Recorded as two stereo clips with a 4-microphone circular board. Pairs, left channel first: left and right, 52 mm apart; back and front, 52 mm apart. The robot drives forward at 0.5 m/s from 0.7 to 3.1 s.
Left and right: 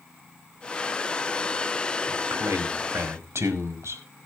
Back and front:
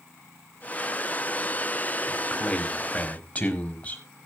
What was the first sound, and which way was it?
A man speaking, 110° right.